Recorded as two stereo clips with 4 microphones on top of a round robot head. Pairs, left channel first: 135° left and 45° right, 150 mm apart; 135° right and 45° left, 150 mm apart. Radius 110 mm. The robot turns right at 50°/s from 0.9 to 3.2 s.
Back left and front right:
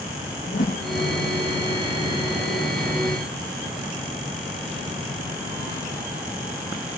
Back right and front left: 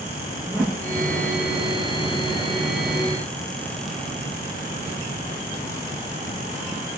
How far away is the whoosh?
About 9 m.